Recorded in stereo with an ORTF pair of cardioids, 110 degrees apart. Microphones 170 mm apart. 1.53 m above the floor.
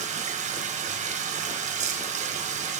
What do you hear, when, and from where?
0.0 s running water: 45° right, 1.2 m